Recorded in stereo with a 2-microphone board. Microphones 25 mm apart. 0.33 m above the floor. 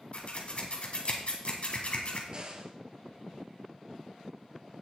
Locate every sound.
0.1 s scissors: 50° left (ahead or behind), 2 m
2.3 s a crack: 40° right (ahead or behind), 1.7 m